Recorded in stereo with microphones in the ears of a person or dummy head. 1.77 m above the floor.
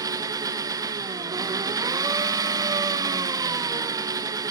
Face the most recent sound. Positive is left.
turn(degrees=-20)  # may be behind; listen again after turning